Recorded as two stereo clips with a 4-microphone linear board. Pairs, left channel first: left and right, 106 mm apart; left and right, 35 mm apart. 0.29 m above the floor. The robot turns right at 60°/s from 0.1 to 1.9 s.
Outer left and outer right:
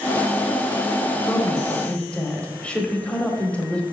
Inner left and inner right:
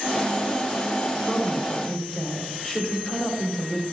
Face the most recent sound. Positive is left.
turn(degrees=10)  # may be behind; listen again after turning